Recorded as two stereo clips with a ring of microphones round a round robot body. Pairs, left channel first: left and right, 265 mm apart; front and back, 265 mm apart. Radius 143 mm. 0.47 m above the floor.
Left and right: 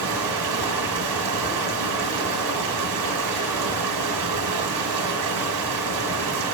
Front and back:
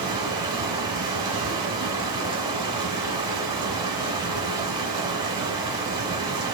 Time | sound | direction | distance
0.0 | running water | 100° right | 2 m